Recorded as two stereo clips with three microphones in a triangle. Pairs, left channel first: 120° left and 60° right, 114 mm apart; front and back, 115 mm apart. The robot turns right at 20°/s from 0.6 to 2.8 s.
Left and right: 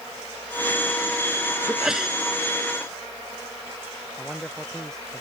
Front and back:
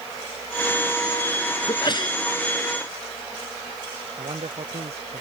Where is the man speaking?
155° right.